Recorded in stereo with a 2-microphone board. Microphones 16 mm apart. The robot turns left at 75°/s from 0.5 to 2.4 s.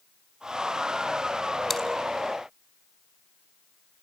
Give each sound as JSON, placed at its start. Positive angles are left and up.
{"t": 1.7, "sound": "chewing", "side_deg": 15, "distance_m": 3.0}